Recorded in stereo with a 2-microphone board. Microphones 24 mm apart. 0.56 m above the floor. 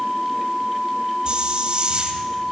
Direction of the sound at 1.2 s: 40° right (ahead or behind).